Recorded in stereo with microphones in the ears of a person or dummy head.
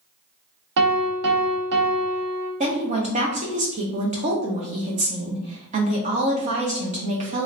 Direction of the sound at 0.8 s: 75° right (ahead or behind).